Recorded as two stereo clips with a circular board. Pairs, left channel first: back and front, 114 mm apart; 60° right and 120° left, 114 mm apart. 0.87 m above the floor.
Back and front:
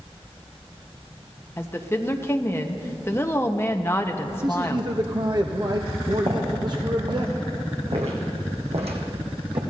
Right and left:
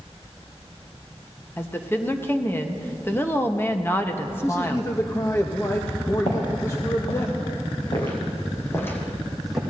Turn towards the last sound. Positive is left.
turn(degrees=35)